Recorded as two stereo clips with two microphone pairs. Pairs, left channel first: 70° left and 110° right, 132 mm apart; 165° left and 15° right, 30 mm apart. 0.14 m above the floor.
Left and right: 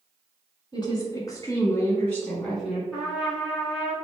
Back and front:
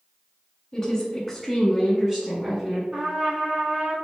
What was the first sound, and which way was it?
A woman speaking, 90° left.